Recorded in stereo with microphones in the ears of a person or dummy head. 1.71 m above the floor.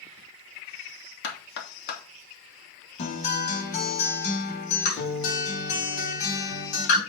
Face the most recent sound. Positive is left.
turn(degrees=45)  # may be behind; listen again after turning